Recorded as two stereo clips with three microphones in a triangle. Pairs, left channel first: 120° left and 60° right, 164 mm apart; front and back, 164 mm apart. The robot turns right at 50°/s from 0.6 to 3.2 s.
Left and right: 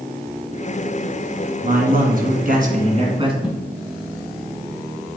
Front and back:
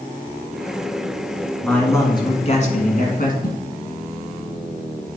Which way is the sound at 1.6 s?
85° right.